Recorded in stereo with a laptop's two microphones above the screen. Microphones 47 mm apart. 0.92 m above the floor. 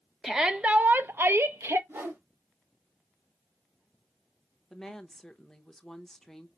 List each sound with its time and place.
0.2 s a shout: 10° right (ahead or behind), 0.6 m; by 1.8 s 70° right (ahead or behind), 0.8 m
1.9 s a whoosh: 60° right (ahead or behind), 2 m
4.7 s a woman speaking: 5° left (ahead or behind), 0.7 m